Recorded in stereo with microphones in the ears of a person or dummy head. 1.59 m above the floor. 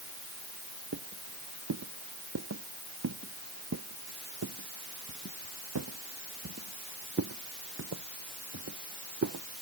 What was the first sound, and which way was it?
Footsteps, 80° right.